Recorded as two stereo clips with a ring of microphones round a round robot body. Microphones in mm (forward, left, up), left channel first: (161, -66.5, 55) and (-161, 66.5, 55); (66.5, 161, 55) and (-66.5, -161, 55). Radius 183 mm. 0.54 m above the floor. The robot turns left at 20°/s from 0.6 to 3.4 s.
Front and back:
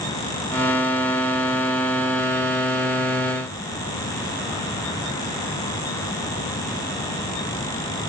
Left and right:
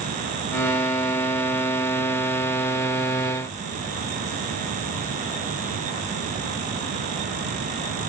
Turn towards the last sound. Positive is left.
No sound to turn to.